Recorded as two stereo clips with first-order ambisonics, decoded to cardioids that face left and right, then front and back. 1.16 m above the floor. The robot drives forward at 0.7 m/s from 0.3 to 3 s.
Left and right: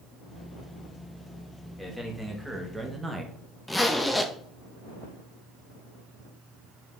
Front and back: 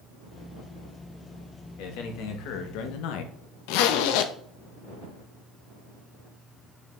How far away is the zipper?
About 0.7 m.